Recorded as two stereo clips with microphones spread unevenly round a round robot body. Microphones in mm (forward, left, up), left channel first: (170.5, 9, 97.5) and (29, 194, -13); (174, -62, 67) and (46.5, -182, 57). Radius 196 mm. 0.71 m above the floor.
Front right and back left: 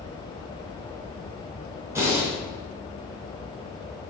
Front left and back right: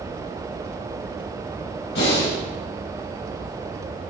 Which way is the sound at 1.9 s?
55° left.